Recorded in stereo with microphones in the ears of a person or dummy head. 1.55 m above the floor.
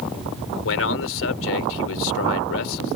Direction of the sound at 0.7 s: 75° left (ahead or behind).